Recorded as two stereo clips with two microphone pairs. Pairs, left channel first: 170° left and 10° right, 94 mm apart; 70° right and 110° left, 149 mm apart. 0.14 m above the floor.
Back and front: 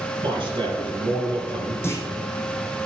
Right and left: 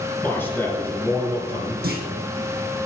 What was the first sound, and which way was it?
A man speaking, 5° left.